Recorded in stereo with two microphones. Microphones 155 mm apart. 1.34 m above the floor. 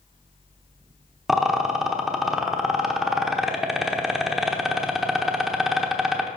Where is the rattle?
Centre (ahead or behind), 1.0 m.